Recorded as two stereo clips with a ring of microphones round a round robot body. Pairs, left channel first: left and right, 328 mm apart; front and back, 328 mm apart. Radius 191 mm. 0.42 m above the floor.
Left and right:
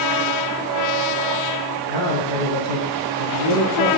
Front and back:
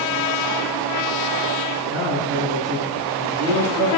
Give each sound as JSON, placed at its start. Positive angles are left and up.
{"t": 1.9, "sound": "a man speaking", "azimuth_deg": -90, "distance_m": 6.5}